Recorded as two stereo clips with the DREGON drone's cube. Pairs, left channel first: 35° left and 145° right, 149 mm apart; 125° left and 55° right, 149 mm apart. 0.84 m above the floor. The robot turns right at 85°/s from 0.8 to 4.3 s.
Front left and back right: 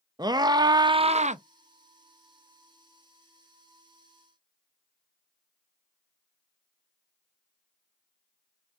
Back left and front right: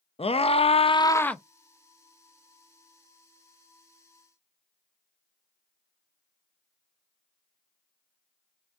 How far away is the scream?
About 0.5 m.